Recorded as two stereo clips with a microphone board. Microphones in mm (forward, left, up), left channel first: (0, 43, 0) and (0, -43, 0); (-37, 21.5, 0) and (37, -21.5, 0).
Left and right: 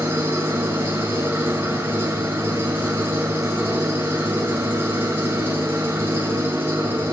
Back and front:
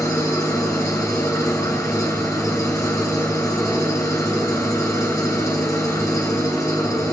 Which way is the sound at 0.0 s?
155° right.